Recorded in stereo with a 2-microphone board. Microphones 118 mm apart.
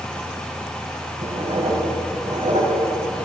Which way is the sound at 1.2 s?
75° right (ahead or behind).